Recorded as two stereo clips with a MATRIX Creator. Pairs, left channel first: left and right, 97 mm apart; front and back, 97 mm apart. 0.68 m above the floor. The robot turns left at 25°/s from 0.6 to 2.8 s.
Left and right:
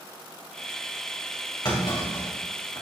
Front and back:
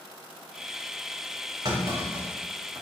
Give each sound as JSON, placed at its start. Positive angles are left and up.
{"t": 1.6, "sound": "a clunk", "azimuth_deg": 135, "distance_m": 2.5}